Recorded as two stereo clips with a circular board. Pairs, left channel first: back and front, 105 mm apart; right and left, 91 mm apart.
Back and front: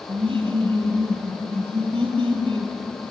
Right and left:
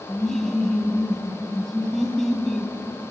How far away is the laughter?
About 2.5 m.